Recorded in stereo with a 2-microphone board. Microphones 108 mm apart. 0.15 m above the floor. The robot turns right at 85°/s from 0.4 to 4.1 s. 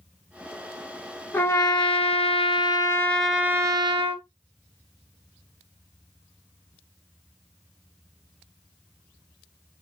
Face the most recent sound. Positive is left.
turn(degrees=-110)